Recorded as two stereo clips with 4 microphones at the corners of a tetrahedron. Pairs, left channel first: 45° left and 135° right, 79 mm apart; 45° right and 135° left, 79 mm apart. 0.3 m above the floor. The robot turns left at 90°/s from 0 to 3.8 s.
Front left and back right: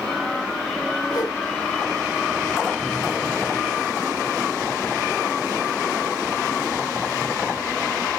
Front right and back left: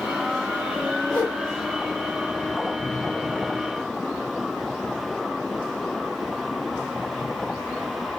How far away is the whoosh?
About 4 m.